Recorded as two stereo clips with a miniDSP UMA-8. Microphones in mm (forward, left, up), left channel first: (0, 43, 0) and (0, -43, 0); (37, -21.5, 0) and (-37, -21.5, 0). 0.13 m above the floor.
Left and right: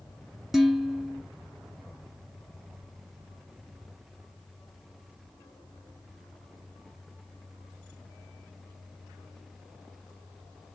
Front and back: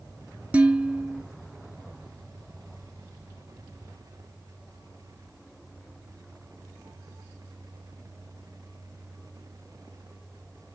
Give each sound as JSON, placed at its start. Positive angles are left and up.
{"t": 0.5, "sound": "dishes clattering", "azimuth_deg": -175, "distance_m": 0.7}